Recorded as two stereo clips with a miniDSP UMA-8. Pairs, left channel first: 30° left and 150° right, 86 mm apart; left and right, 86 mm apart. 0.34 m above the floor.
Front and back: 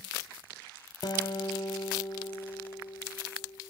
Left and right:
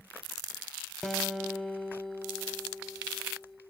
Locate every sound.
1.0 s a guitar: 5° left, 0.9 m